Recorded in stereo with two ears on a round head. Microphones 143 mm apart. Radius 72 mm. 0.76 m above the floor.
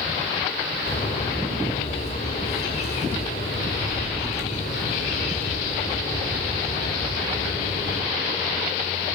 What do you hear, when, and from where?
0.9 s a bird: 45° left (ahead or behind), 3.5 m